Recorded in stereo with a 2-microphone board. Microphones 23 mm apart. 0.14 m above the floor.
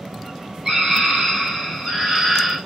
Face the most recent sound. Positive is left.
turn(degrees=-15)  # may be behind; listen again after turning